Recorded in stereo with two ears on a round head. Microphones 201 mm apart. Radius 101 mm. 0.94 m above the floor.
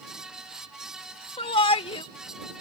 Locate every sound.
1.4 s a shout: 25° left (ahead or behind)